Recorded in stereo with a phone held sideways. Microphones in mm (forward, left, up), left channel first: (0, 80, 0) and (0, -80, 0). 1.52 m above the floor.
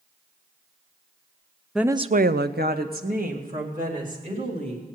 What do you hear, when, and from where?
1.8 s a woman speaking: 5° right (ahead or behind), 0.7 m; by 4.8 s 50° right (ahead or behind), 3.5 m